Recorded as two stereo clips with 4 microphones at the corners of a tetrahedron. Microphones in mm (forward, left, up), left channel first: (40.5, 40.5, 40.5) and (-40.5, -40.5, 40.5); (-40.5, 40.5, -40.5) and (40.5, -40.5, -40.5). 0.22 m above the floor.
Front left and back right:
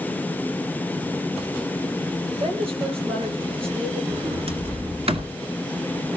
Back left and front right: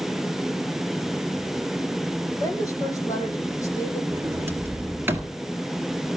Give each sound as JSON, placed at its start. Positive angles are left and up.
{"t": 2.4, "sound": "a woman speaking", "azimuth_deg": -165, "distance_m": 5.5}
{"t": 4.1, "sound": "a sliding door", "azimuth_deg": -115, "distance_m": 1.9}